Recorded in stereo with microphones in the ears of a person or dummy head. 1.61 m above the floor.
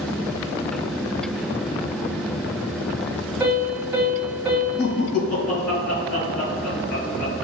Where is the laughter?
65° left (ahead or behind), 1.9 m.